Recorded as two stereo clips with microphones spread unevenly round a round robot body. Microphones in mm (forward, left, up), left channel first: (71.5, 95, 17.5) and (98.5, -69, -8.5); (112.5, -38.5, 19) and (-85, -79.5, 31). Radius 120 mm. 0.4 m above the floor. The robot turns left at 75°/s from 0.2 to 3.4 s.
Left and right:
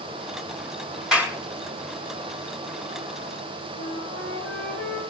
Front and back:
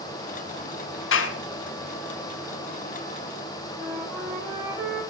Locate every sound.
1.1 s a clap: 5° left, 3.5 m; by 1.4 s 15° right, 3.5 m
3.8 s a flute: 105° left, 7 m